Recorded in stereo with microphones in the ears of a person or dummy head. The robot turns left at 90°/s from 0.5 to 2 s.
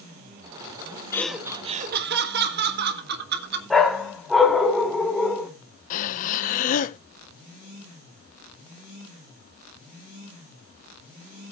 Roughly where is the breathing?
Left.